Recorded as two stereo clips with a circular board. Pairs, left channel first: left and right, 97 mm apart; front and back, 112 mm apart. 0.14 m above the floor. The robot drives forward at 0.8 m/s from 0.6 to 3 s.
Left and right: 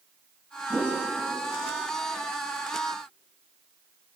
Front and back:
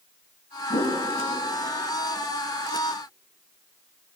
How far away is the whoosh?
About 4 m.